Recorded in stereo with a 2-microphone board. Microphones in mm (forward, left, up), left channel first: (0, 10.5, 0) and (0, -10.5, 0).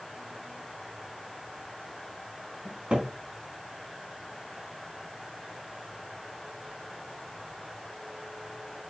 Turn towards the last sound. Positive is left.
turn(degrees=-65)  # may be behind; listen again after turning